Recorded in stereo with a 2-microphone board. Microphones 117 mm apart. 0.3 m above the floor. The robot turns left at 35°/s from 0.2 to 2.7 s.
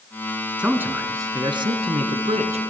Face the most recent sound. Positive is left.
turn(degrees=-85)